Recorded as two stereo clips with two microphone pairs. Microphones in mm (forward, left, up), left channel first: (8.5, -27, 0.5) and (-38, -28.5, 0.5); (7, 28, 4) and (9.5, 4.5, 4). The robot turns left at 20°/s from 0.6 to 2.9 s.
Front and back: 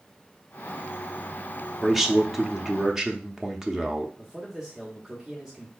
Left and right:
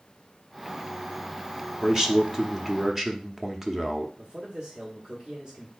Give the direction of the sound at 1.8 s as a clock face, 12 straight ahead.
4 o'clock.